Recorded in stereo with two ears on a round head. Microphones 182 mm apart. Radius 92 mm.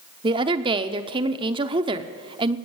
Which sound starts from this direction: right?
A woman speaking, at 0.2 s.